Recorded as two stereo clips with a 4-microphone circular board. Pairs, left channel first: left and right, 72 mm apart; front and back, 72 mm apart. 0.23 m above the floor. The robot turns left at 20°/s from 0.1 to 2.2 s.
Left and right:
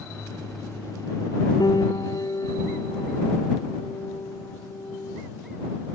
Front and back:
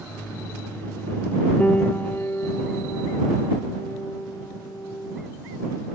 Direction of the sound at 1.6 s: 70° left.